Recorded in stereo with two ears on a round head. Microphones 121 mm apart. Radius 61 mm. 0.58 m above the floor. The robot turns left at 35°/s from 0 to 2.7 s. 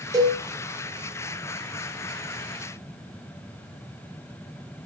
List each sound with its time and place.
0.1 s a cowbell: 25° right (ahead or behind), 4 m; by 0.4 s 35° right (ahead or behind), 4 m